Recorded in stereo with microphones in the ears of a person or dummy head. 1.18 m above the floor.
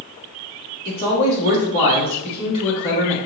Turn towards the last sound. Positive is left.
turn(degrees=30)  # may be behind; listen again after turning